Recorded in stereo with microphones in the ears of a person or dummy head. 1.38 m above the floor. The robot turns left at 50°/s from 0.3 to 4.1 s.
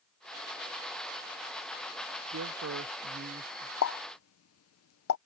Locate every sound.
2.3 s a man speaking: 90° right; by 3.7 s 160° right
3.8 s a pop: 80° left; by 5.2 s 75° left (ahead or behind)